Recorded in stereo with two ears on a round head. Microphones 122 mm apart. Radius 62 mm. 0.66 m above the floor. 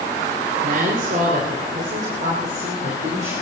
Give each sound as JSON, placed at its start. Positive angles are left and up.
{"t": 0.6, "sound": "a woman speaking", "side_deg": -65, "distance_m": 2.5}